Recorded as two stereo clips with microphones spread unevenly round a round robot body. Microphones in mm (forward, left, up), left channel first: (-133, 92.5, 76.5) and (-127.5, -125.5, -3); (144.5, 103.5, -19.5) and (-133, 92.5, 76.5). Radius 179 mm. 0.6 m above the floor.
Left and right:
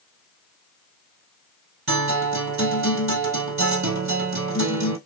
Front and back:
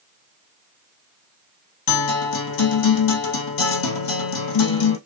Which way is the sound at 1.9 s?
25° right.